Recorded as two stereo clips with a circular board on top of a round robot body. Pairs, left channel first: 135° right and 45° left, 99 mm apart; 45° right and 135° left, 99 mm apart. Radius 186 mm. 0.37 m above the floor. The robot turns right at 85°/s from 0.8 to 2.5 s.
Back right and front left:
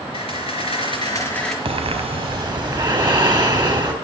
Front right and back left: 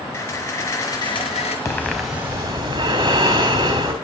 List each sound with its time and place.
0.1 s a camera shutter: 110° right, 4.5 m; by 1.6 s 45° right, 4.5 m
1.6 s breathing: 15° left, 3 m; by 3.9 s 90° left, 3 m